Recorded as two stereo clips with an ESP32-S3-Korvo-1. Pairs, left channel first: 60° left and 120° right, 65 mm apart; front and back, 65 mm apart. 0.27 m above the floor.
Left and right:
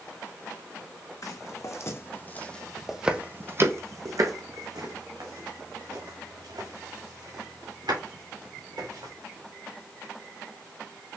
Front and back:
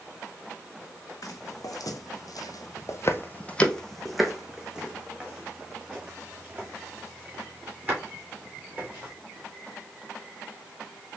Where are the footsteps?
25° left, 1.0 m; by 9.1 s 115° right, 3.5 m.